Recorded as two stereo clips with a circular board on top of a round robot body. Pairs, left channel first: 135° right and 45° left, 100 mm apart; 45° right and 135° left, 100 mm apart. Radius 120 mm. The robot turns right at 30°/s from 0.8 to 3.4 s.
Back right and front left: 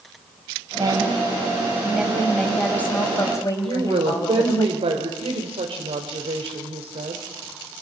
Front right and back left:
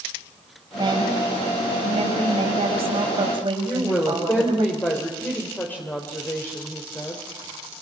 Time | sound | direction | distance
0.7 | a woman speaking | 90° left | 5 m
3.6 | a woman speaking | 25° left | 3 m